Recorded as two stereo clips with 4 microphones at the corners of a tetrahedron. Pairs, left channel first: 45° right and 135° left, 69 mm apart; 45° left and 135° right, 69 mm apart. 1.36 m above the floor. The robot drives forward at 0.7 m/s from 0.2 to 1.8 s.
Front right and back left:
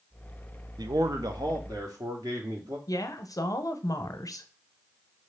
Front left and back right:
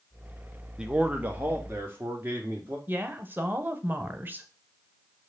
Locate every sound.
0.8 s a man speaking: 145° left, 0.5 m; by 2.8 s 165° left, 1.2 m
2.9 s a woman speaking: 75° right, 0.6 m